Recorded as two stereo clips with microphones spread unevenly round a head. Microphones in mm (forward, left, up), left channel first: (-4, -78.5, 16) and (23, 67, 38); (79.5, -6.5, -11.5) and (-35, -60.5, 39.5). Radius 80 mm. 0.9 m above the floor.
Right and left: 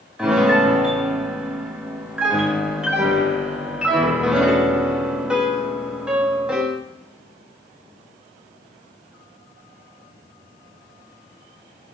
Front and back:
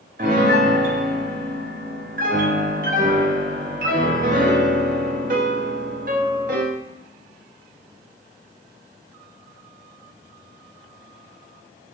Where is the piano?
165° left, 0.6 m.